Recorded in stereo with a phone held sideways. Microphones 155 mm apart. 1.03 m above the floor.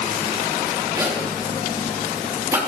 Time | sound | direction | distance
1.0 | a zipper | 15° right (ahead or behind) | 2 m